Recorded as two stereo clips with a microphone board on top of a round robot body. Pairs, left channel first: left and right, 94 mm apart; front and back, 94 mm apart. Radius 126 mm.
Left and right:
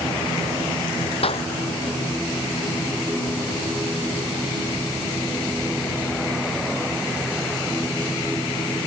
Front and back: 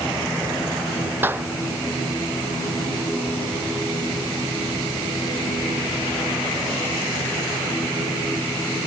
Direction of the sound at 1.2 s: 110° left.